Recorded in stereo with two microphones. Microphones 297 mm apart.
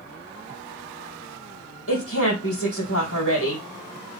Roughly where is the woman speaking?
Left.